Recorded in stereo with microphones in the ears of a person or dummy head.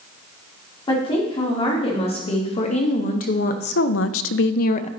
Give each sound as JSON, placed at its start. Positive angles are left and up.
{"t": 0.9, "sound": "a woman speaking", "side_deg": 30, "distance_m": 2.5}